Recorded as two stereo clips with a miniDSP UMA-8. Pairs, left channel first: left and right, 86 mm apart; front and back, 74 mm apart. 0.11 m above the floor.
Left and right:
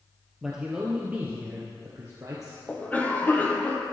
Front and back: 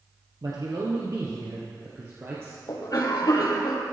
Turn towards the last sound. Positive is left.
turn(degrees=25)